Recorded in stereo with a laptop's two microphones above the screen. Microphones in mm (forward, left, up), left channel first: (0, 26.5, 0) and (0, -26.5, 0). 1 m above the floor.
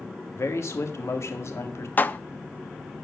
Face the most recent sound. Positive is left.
turn(degrees=35)  # may be behind; listen again after turning